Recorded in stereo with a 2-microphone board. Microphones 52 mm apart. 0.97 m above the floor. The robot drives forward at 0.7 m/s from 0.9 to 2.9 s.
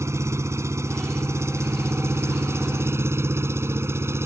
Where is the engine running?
65° right (ahead or behind); by 4.3 s 55° right (ahead or behind).